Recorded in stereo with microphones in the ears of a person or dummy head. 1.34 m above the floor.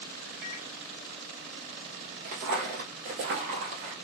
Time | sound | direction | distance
0.4 | a microwave | 65° right (ahead or behind) | 1.4 m
2.2 | footsteps | 35° right (ahead or behind) | 1.9 m